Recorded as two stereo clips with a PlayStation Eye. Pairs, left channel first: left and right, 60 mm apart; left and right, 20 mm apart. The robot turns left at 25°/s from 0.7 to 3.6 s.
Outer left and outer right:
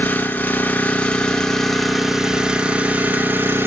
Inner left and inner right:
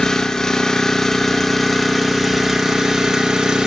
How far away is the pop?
No pop in this recording.